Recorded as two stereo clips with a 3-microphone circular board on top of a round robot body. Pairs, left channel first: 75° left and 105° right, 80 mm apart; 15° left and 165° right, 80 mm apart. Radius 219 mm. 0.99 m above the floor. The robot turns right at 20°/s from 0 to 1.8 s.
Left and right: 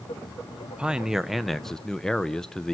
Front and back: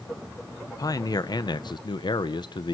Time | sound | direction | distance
0.7 | a man speaking | 30° right | 1.0 m